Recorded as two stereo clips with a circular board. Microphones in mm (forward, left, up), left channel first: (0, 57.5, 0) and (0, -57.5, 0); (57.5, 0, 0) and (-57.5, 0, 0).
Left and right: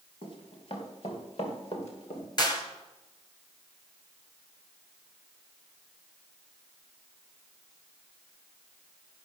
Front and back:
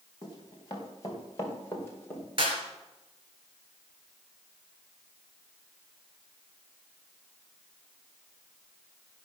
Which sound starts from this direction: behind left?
A clap, at 2.4 s.